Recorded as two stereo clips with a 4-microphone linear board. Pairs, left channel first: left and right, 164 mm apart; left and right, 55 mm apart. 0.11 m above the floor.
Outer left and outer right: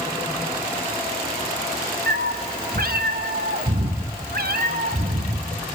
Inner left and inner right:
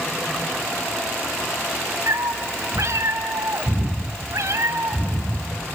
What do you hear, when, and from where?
2.1 s a cat meowing: 70° right (ahead or behind), 1.9 m